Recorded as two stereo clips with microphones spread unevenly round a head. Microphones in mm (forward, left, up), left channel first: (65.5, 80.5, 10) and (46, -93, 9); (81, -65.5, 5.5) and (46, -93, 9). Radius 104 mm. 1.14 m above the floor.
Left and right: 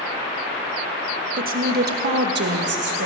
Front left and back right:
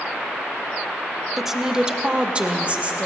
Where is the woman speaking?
55° right, 1.0 m; by 3.1 s 85° right, 1.6 m.